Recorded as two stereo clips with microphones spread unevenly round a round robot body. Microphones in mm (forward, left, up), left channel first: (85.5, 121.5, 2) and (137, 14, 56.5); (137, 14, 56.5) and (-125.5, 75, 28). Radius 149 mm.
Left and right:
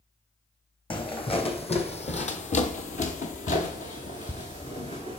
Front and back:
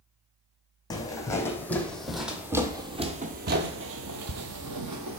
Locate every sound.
0.9 s footsteps: 60° left, 1.5 m; by 5.2 s 165° right, 1.1 m